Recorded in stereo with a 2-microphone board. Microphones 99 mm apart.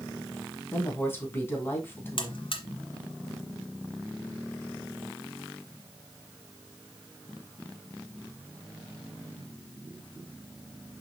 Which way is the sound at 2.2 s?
60° left (ahead or behind).